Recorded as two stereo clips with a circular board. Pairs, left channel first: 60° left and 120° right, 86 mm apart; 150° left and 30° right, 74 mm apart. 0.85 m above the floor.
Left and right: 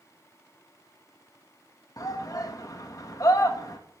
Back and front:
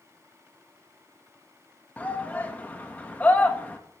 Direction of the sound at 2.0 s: 90° left.